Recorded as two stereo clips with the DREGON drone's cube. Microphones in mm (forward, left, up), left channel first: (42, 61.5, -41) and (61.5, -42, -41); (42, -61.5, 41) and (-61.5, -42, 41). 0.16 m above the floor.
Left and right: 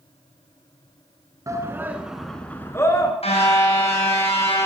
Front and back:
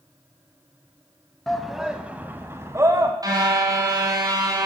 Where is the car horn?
115° left, 4 m.